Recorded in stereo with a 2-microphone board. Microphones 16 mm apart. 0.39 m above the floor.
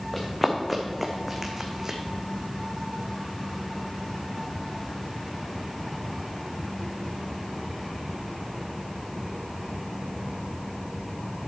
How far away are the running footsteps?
About 1.9 m.